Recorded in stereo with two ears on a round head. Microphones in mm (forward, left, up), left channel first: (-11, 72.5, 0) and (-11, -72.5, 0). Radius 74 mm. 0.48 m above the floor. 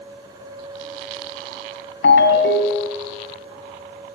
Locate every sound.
2.0 s a ringtone: 85° left, 1.8 m